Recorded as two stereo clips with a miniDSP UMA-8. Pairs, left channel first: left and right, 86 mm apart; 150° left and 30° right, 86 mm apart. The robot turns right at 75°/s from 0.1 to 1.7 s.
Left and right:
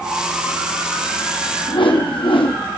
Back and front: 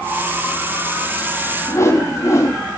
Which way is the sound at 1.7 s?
90° left.